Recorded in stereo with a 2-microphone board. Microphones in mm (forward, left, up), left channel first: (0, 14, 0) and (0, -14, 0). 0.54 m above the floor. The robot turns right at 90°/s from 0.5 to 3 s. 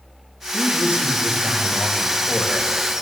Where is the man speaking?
130° right, 2.5 m; by 2.7 s 65° left, 2.5 m.